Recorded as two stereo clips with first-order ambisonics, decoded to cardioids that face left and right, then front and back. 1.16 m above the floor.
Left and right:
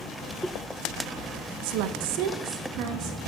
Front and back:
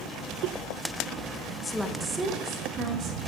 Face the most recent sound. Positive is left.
turn(degrees=-120)